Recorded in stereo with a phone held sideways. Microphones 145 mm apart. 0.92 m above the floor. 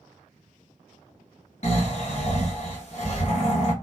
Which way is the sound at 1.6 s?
50° left (ahead or behind).